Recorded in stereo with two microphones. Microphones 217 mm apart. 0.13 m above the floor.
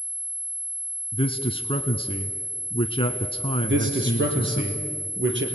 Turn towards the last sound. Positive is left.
turn(degrees=-60)  # may be behind; listen again after turning